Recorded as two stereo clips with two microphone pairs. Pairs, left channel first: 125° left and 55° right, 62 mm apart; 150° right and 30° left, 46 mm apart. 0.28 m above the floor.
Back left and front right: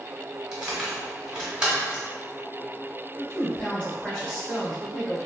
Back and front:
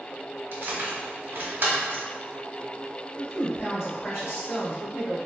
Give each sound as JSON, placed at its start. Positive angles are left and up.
{"t": 0.5, "sound": "keys jangling", "azimuth_deg": 15, "distance_m": 1.0}
{"t": 3.2, "sound": "a woman speaking", "azimuth_deg": -175, "distance_m": 1.9}